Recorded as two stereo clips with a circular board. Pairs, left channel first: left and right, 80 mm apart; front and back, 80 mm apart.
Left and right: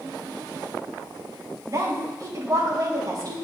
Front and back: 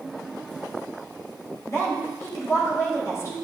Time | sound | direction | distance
1.7 | a woman speaking | 50° right | 3.5 m